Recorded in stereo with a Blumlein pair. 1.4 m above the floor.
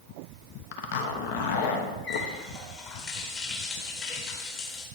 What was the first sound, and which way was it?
A zipper, 50° left.